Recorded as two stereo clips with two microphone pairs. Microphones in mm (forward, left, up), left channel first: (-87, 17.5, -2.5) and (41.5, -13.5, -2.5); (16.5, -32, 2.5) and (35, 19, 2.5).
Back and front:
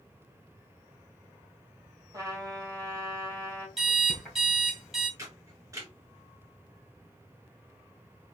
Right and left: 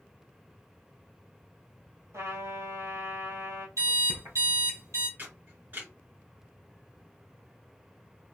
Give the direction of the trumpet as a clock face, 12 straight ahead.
10 o'clock.